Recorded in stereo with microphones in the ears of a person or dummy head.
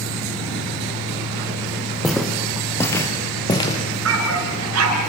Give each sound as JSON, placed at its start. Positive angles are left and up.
{"t": 2.0, "sound": "footsteps", "side_deg": 0, "distance_m": 4.0}
{"t": 4.0, "sound": "a dog barking", "side_deg": -85, "distance_m": 6.0}